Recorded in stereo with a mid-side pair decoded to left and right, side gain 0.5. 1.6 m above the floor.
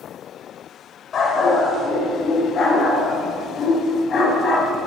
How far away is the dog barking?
About 3.5 m.